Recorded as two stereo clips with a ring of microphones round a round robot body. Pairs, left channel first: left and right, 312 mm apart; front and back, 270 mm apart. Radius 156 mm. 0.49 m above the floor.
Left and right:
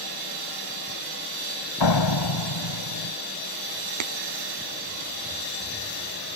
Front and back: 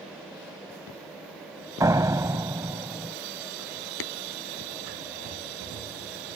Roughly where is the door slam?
Left.